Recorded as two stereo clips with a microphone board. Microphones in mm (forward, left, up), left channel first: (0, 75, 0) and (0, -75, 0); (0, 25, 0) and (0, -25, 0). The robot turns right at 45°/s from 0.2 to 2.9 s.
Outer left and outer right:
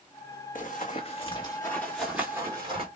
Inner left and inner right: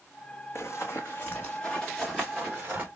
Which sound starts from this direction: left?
Running footsteps, at 0.6 s.